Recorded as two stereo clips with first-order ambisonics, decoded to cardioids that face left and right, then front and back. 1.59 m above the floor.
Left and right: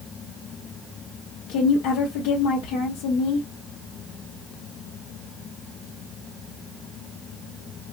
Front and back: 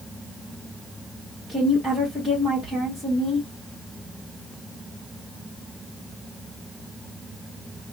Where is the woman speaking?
85° left, 1.5 m.